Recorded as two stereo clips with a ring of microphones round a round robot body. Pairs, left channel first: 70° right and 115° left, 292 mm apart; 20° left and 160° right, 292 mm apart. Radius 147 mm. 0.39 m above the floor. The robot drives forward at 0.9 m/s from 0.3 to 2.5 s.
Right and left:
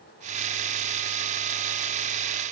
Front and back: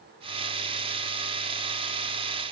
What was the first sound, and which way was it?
Only background noise.